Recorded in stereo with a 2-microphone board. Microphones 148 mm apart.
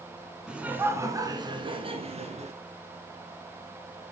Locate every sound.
0.5 s laughter: 5° right (ahead or behind), 1.6 m; by 2.5 s 50° right (ahead or behind), 2.5 m